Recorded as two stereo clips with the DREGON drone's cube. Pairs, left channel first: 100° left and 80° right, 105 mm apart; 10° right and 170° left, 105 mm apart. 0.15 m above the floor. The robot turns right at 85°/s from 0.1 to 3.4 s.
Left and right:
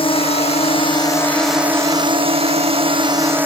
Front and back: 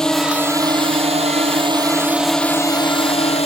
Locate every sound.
0.0 s a drone: 75° left; by 3.5 s 5° right